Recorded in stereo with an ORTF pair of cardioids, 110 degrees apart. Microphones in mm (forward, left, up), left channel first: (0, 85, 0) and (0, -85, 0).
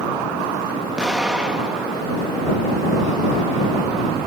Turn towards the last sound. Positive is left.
turn(degrees=-5)